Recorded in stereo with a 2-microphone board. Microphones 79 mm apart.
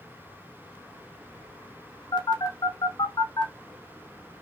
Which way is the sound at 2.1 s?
65° left (ahead or behind).